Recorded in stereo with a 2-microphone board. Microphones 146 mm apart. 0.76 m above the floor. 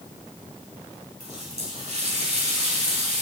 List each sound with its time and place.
1.2 s a running tap: 55° right (ahead or behind), 3.5 m